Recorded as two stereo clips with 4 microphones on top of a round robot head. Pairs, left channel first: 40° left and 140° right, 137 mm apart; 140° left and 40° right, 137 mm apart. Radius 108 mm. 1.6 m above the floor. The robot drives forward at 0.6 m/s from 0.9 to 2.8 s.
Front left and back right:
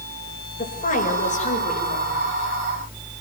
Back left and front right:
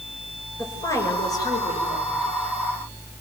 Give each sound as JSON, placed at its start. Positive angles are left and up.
{"t": 0.6, "sound": "a woman speaking", "azimuth_deg": 75, "distance_m": 7.0}